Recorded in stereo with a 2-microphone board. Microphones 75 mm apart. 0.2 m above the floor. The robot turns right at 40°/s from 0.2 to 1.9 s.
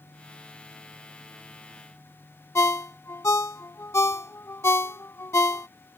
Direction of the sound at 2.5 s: 35° left (ahead or behind).